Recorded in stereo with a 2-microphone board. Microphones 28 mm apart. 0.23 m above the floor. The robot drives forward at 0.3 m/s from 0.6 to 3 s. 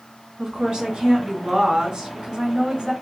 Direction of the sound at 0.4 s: 25° right (ahead or behind).